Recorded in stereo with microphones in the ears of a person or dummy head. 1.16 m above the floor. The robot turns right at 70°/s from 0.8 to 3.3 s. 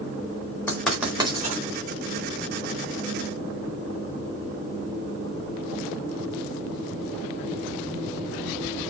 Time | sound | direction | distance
0.7 | writing | 15° left (ahead or behind) | 4 m